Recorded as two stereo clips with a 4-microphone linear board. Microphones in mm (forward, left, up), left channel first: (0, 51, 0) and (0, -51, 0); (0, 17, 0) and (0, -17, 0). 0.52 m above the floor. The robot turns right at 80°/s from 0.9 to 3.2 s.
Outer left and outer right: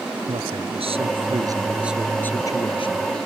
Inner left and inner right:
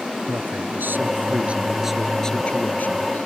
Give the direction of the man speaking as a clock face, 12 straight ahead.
3 o'clock.